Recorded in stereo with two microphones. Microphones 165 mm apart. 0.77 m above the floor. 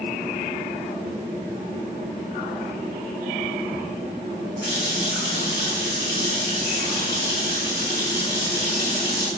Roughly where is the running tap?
Left.